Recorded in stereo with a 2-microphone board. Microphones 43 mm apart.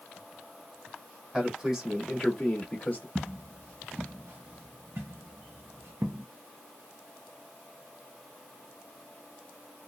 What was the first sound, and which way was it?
A man speaking, 20° right (ahead or behind).